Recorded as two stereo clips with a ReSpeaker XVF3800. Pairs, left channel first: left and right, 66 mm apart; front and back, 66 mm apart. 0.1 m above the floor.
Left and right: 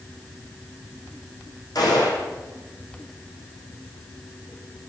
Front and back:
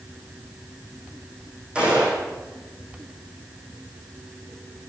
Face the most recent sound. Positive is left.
turn(degrees=105)